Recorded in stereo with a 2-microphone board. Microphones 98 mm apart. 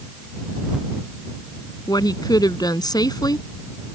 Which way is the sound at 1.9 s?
40° left (ahead or behind).